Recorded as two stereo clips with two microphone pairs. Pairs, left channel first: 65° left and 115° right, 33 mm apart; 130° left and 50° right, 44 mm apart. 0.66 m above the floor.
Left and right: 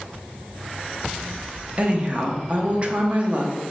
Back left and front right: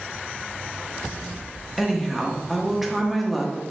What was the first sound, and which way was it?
A woman speaking, 145° right.